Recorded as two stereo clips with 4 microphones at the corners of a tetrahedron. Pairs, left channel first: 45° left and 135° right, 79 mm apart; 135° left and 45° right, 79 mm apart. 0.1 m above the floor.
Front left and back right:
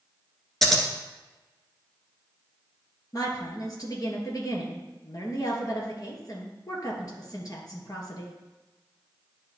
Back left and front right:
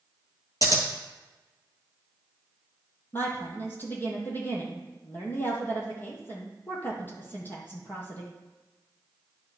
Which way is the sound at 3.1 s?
75° left.